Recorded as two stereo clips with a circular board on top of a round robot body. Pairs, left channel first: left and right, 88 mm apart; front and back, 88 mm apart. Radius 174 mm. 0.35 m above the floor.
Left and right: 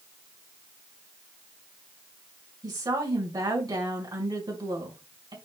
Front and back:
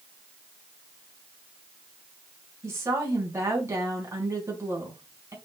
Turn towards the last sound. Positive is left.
turn(degrees=-120)